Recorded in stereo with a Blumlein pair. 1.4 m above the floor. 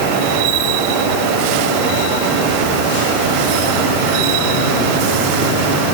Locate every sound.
Only background noise.